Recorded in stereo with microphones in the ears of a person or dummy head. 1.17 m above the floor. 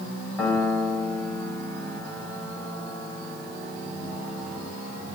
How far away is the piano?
About 4 m.